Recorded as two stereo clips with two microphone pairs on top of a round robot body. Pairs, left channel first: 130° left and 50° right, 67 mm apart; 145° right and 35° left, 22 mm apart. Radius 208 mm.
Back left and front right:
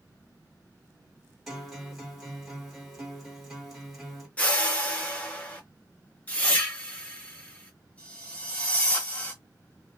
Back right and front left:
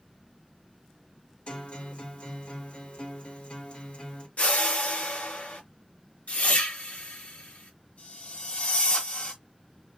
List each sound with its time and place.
1.5 s a guitar: 145° right, 1.7 m
4.4 s a whoosh: 160° right, 0.7 m